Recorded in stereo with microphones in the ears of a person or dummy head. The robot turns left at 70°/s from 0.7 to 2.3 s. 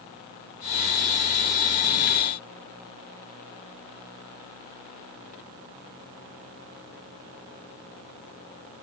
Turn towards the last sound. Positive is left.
No sound to turn to.